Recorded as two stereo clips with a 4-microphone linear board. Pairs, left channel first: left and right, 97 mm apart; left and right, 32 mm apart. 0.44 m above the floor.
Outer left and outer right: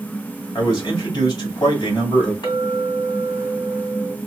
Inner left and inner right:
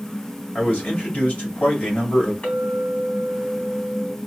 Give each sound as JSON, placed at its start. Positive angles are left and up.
{"t": 0.6, "sound": "a man speaking", "side_deg": 45, "distance_m": 3.0}
{"t": 2.4, "sound": "a clink", "side_deg": 50, "distance_m": 2.5}